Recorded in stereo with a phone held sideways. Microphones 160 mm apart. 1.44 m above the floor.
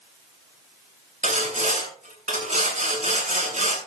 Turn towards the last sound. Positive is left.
turn(degrees=-55)  # may be behind; listen again after turning